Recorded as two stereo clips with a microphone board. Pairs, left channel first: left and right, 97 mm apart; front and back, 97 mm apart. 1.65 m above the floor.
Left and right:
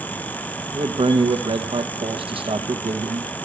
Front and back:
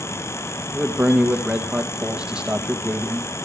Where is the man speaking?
100° right, 1.4 m.